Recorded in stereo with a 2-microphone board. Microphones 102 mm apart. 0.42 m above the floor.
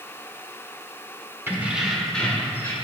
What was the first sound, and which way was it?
Keys jangling, 25° right (ahead or behind).